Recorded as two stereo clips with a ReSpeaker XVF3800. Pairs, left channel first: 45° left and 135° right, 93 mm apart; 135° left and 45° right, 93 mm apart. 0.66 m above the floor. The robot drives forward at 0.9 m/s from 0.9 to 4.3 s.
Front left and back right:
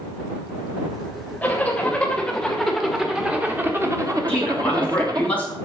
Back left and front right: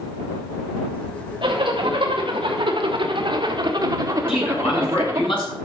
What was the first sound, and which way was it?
A zipper, 25° right.